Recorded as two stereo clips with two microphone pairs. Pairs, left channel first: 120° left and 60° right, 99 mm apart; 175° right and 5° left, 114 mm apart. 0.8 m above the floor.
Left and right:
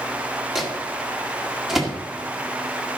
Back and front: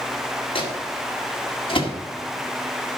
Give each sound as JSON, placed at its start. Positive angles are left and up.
{"t": 0.6, "sound": "a microwave", "azimuth_deg": -145, "distance_m": 1.8}